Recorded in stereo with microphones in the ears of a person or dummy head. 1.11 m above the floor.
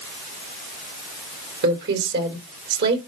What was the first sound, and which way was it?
A woman speaking, 65° right (ahead or behind).